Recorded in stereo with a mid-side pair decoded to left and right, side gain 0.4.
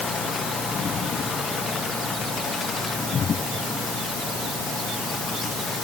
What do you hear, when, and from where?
Only background noise.